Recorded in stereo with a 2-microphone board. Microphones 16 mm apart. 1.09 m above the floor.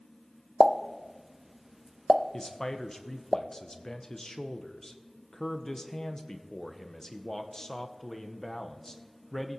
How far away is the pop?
About 0.6 m.